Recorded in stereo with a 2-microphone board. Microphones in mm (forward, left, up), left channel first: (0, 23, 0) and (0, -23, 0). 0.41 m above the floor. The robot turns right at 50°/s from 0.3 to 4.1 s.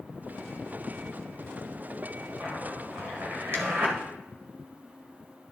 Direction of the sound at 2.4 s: 35° right (ahead or behind).